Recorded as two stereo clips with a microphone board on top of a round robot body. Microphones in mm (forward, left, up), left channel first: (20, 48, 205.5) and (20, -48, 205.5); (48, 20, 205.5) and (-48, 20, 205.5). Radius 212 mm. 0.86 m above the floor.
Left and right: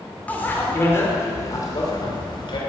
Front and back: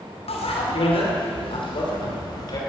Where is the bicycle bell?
15° left, 2.5 m; by 2.6 s 50° left, 3 m.